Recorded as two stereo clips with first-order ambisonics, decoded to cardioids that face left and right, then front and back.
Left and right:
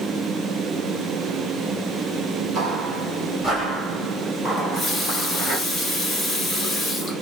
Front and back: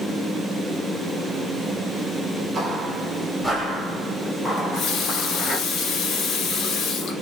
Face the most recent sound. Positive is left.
turn(degrees=20)